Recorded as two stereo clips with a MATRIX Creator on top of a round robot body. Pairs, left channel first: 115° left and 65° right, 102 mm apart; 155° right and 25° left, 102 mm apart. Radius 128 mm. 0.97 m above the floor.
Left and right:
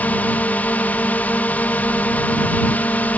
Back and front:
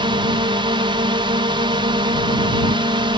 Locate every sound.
0.0 s a drone: 40° left